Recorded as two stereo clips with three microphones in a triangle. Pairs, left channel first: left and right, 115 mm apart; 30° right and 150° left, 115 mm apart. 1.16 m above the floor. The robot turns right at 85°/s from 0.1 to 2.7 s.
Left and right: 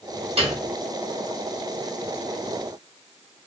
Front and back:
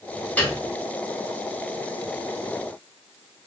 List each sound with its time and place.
0.4 s a piano: 110° right, 0.9 m; by 0.6 s 90° right, 0.9 m